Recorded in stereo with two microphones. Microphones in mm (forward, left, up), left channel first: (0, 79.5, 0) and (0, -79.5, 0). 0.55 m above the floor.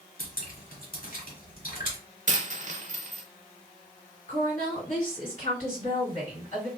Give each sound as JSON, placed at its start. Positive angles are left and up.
{"t": 0.2, "sound": "dripping", "side_deg": 60, "distance_m": 1.4}
{"t": 2.3, "sound": "a dropped coin", "side_deg": -50, "distance_m": 0.5}
{"t": 4.3, "sound": "a woman speaking", "side_deg": 45, "distance_m": 1.8}